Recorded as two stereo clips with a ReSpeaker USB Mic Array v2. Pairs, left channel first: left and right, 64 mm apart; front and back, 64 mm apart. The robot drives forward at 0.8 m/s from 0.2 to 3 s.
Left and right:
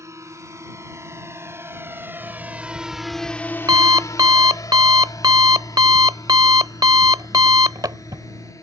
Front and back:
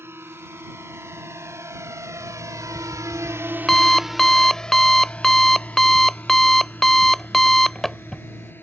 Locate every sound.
0.0 s a drone: 130° right; by 8.6 s 55° left
2.2 s an alarm clock: 55° right; by 8.5 s 85° right